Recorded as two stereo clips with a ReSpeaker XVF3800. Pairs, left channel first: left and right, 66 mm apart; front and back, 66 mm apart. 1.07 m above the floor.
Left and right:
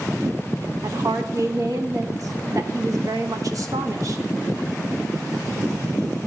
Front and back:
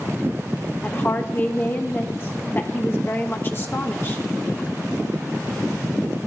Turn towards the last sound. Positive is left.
turn(degrees=-55)